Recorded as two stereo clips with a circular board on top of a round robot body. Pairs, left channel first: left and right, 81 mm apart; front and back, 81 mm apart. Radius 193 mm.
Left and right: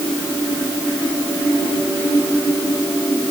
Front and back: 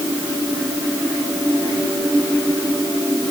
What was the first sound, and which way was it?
Only background noise.